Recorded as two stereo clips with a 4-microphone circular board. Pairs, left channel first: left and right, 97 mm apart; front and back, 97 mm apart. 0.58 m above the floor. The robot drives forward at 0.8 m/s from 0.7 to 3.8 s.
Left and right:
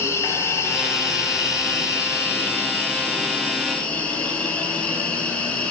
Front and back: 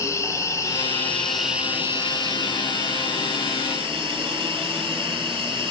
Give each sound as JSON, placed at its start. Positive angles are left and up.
{"t": 0.0, "sound": "an insect", "azimuth_deg": 40, "distance_m": 1.0}